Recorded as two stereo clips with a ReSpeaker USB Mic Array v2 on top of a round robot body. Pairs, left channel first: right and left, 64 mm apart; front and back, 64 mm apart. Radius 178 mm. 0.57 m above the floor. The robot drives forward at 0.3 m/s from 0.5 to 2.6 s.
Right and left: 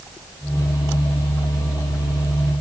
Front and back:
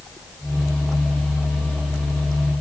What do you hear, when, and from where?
Only background noise.